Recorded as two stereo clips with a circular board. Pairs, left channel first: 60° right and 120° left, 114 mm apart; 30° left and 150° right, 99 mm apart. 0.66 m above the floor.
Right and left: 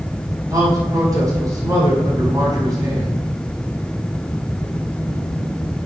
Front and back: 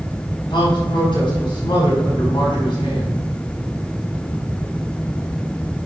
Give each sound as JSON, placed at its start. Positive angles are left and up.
{"t": 0.5, "sound": "a man speaking", "azimuth_deg": 65, "distance_m": 6.0}